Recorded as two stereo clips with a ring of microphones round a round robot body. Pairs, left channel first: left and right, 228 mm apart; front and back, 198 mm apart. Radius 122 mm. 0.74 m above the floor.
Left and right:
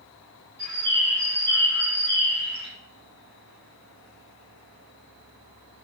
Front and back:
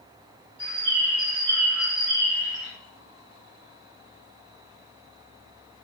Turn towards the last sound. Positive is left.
turn(degrees=-135)